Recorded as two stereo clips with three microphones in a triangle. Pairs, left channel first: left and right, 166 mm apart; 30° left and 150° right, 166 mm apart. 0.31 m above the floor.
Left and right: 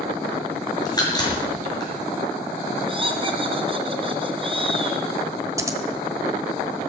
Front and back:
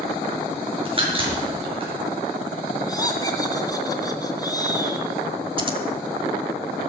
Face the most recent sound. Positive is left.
turn(degrees=-145)